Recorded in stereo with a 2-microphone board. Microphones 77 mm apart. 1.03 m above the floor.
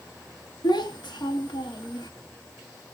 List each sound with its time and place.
0.6 s a child speaking: 70° left (ahead or behind), 1.0 m